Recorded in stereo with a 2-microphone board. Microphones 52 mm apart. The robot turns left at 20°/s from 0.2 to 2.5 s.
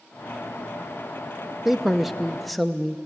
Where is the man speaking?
5° right (ahead or behind), 0.6 m; by 3.0 s centre (ahead or behind), 0.6 m.